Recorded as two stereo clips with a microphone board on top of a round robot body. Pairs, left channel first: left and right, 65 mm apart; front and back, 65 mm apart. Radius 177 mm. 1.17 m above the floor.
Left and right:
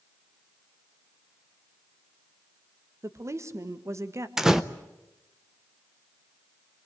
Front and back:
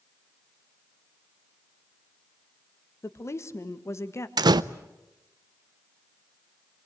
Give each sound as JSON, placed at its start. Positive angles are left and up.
{"t": 3.0, "sound": "a woman speaking", "azimuth_deg": -45, "distance_m": 1.7}
{"t": 4.4, "sound": "a door slam", "azimuth_deg": -175, "distance_m": 0.5}